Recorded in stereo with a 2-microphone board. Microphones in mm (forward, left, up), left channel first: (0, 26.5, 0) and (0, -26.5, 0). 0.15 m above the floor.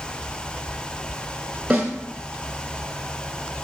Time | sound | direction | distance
1.7 | a snare drum | 25° right (ahead or behind) | 1.5 m